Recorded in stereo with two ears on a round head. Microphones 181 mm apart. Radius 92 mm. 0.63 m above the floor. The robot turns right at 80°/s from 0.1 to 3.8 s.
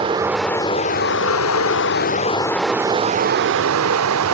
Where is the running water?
25° right, 0.8 m; by 4.3 s 90° right, 0.8 m.